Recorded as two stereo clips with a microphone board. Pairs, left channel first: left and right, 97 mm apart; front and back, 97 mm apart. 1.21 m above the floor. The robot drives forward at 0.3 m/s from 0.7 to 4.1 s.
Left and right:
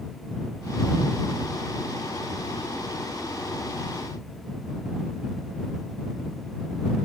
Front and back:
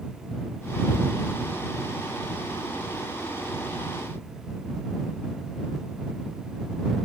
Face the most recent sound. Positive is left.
No sound to turn to.